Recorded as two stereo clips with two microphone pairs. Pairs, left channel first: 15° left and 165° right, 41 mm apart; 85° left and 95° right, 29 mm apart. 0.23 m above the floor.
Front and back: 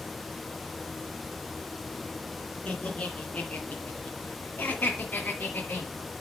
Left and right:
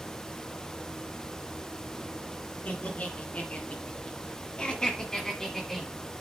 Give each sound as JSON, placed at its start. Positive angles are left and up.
{"t": 2.6, "sound": "laughter", "azimuth_deg": 70, "distance_m": 3.0}